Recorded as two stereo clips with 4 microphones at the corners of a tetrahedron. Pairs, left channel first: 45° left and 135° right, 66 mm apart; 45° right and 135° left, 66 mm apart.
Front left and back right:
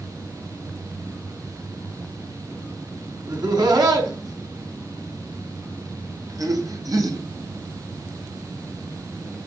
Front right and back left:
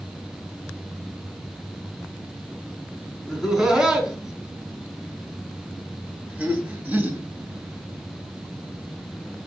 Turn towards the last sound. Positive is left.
turn(degrees=-160)